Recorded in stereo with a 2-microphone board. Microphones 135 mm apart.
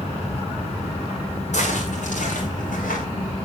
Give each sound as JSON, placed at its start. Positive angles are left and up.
{"t": 1.5, "sound": "footsteps", "side_deg": 55, "distance_m": 6.0}